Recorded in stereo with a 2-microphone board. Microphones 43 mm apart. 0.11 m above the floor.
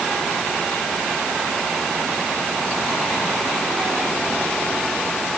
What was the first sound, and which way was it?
Only background noise.